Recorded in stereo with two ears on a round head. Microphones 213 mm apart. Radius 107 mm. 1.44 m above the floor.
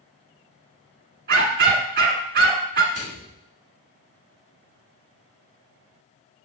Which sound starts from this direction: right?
A dog barking, at 1.3 s.